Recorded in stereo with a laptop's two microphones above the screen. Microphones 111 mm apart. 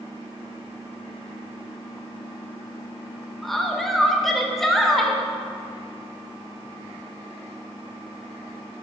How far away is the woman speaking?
About 0.6 m.